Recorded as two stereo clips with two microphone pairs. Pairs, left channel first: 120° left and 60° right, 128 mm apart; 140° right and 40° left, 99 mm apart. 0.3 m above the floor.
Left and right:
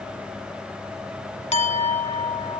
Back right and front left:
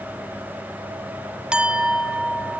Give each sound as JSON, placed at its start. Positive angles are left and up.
{"t": 1.5, "sound": "a clink", "azimuth_deg": 120, "distance_m": 1.4}